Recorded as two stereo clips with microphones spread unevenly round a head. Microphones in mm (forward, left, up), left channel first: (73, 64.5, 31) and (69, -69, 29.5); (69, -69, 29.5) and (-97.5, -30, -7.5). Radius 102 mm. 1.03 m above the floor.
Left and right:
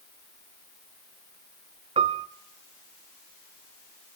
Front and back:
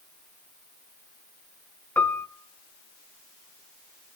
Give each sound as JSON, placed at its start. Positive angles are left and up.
{"t": 2.0, "sound": "a piano", "azimuth_deg": -75, "distance_m": 0.8}